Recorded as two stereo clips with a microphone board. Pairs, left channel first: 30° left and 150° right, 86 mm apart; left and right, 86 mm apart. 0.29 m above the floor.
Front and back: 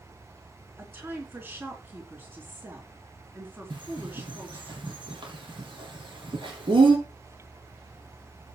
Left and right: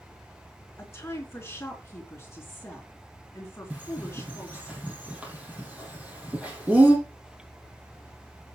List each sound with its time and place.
0.8 s a woman speaking: 150° left, 4 m
3.7 s a bird: 165° right, 5 m